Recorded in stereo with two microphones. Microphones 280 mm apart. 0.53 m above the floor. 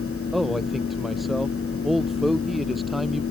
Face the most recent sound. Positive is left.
turn(degrees=0)  # may be behind; listen again after turning